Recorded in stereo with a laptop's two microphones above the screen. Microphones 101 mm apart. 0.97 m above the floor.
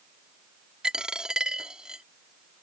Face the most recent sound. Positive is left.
turn(degrees=-10)  # may be behind; listen again after turning